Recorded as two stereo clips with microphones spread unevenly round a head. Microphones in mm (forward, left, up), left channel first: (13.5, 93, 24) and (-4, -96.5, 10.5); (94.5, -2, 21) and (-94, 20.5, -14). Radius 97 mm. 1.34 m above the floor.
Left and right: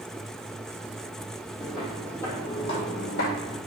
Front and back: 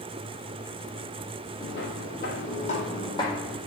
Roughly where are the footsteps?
Ahead.